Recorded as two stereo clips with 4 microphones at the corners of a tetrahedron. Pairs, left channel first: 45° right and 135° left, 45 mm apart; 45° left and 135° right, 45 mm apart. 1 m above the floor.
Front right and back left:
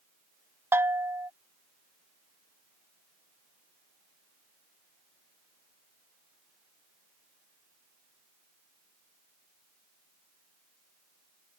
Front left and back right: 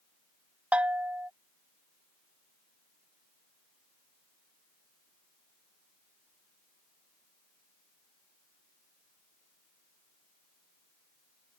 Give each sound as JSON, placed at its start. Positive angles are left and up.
{"t": 0.7, "sound": "a bell", "azimuth_deg": 165}